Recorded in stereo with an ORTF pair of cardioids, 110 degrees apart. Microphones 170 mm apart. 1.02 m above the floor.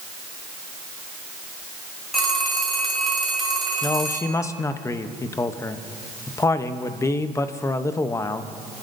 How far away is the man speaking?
About 0.8 m.